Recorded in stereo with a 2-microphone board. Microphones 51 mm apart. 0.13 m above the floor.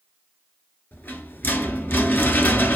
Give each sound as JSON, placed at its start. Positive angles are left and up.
{"t": 0.9, "sound": "a rattle", "side_deg": 40, "distance_m": 0.6}